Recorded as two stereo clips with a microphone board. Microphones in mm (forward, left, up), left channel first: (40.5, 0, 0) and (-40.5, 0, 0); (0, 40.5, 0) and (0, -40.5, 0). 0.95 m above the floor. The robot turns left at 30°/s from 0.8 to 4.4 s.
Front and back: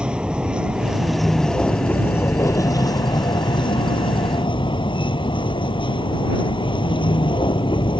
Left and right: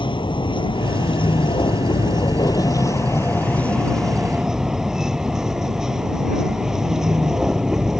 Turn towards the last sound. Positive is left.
turn(degrees=-5)